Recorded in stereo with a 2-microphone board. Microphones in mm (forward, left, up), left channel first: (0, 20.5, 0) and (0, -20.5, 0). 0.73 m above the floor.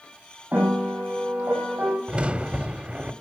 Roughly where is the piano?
Right.